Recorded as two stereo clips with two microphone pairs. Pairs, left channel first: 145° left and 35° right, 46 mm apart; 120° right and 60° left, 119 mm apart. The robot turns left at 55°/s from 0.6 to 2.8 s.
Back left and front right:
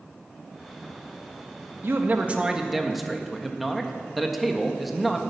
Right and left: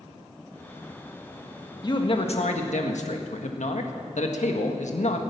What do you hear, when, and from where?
1.8 s a man speaking: 70° right, 1.6 m; by 5.2 s 120° right, 1.6 m